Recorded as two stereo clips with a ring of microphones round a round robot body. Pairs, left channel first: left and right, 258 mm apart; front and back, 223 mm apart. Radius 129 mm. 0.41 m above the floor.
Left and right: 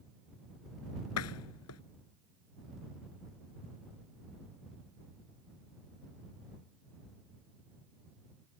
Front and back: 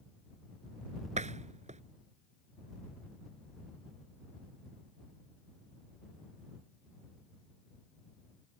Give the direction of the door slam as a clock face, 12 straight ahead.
8 o'clock.